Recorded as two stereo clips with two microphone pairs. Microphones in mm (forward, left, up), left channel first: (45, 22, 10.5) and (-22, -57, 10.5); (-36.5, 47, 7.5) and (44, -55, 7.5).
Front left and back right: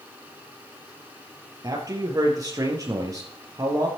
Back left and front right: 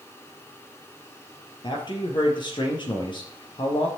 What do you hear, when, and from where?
1.6 s a man speaking: straight behind, 4 m